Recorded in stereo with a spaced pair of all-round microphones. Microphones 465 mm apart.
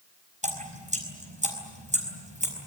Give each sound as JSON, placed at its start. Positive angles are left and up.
{"t": 0.4, "sound": "dripping", "side_deg": -15, "distance_m": 5.0}